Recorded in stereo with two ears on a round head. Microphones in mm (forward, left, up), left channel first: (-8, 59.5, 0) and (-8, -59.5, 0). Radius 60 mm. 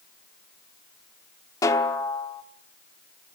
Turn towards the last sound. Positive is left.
turn(degrees=25)  # may be behind; listen again after turning